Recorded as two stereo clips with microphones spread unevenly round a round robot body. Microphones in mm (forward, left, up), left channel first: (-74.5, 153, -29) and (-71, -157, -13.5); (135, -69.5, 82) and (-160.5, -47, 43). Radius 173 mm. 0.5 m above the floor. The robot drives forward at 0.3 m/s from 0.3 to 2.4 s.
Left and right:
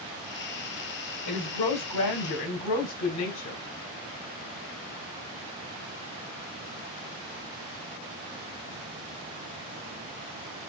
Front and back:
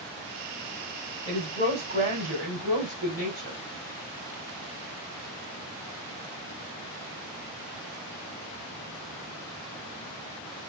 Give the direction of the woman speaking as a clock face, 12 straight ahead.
8 o'clock.